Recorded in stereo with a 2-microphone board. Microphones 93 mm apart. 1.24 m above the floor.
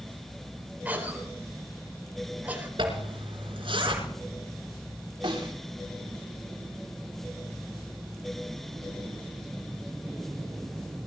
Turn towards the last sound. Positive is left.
turn(degrees=-70)  # may be behind; listen again after turning